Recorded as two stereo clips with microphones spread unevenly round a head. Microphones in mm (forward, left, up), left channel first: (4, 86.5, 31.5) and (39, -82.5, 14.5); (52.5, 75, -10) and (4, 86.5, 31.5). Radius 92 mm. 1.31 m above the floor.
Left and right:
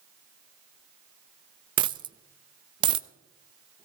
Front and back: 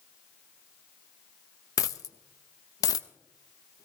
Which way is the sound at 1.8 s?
65° right.